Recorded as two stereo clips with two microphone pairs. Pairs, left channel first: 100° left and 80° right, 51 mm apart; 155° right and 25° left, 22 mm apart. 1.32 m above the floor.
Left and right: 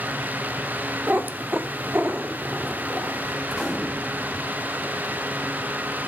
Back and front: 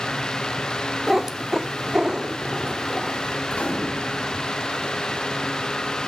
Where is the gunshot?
170° right, 3 m.